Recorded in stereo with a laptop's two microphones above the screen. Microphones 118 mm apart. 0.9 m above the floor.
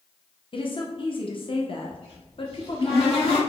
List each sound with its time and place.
0.5 s a woman speaking: 45° left (ahead or behind), 0.6 m
1.9 s a cupboard door: 55° left (ahead or behind), 1.8 m